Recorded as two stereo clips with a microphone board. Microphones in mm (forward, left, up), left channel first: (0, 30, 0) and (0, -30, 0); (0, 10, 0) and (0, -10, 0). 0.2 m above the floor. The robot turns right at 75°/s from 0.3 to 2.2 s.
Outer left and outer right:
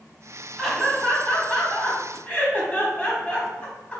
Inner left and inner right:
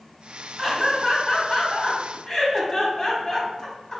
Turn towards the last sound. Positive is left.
turn(degrees=20)  # may be behind; listen again after turning